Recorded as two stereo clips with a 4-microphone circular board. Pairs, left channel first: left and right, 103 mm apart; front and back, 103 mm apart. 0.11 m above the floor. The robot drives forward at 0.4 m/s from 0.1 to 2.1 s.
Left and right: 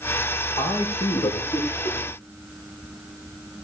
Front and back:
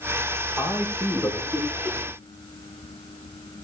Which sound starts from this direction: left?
A man speaking, at 0.6 s.